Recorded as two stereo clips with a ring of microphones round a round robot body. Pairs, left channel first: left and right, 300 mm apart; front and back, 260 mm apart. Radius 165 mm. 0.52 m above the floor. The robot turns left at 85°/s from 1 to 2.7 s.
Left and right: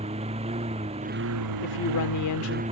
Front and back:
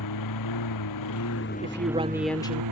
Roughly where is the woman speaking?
Behind left.